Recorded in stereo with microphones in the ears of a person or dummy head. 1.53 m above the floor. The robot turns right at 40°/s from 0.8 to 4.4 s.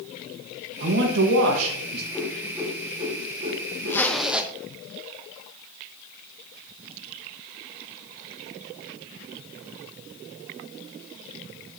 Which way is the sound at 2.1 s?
5° left (ahead or behind).